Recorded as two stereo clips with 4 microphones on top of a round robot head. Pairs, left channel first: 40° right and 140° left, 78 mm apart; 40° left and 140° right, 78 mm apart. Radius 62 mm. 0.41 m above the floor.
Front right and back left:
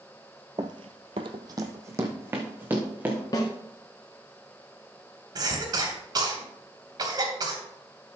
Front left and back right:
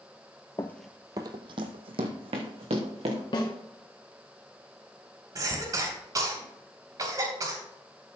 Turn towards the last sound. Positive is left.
turn(degrees=175)